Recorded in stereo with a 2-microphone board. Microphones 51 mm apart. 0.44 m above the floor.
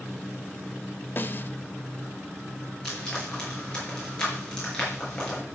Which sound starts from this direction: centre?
Frying, at 2.9 s.